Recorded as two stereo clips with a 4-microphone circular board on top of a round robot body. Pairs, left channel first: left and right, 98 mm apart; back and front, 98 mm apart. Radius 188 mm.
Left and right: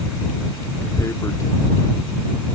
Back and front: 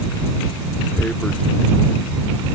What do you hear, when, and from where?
1.0 s tearing paper: 110° left